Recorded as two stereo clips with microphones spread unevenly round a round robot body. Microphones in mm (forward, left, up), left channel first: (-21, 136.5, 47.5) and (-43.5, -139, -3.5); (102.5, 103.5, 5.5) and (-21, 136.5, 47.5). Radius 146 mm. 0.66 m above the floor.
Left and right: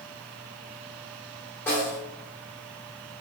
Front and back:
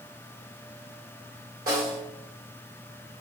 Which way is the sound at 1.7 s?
170° left.